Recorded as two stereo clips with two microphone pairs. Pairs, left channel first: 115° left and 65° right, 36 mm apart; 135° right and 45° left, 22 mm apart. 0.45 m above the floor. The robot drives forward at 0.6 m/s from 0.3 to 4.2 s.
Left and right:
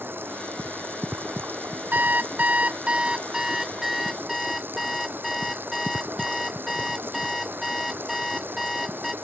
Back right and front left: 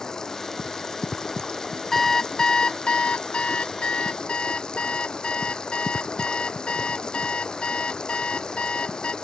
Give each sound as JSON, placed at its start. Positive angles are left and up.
{"t": 0.0, "sound": "running water", "azimuth_deg": -70}
{"t": 1.9, "sound": "an alarm clock", "azimuth_deg": -60}